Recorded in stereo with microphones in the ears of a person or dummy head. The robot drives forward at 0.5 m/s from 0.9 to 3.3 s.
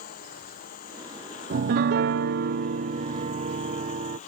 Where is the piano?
50° right (ahead or behind); by 4.2 s 30° right (ahead or behind).